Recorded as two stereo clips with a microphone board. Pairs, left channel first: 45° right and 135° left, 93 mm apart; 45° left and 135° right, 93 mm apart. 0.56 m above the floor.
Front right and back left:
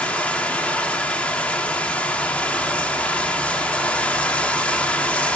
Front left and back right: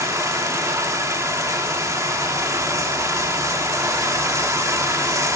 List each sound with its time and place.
0.0 s running water: 110° right, 1.1 m